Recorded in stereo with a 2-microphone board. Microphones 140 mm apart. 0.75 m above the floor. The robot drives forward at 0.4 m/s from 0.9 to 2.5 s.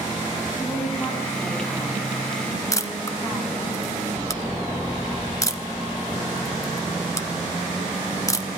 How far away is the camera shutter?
About 1.1 m.